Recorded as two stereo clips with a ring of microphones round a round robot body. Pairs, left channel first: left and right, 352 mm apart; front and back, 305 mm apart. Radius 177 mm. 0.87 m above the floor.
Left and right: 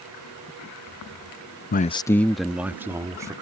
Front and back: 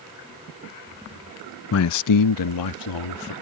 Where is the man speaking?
35° left; by 3.3 s 10° right.